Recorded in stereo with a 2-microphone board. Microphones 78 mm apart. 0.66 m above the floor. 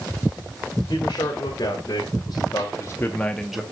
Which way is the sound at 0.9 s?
60° left (ahead or behind).